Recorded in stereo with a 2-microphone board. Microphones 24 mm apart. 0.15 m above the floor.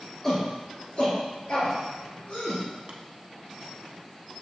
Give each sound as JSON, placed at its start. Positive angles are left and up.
{"t": 0.2, "sound": "a shout", "side_deg": 15, "distance_m": 2.0}
{"t": 2.9, "sound": "tapping", "side_deg": -40, "distance_m": 0.6}